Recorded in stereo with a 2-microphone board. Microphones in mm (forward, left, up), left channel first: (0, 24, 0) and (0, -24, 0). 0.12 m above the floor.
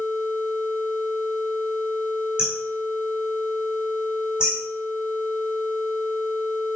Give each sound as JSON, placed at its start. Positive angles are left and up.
{"t": 2.4, "sound": "hammering", "side_deg": -20, "distance_m": 5.0}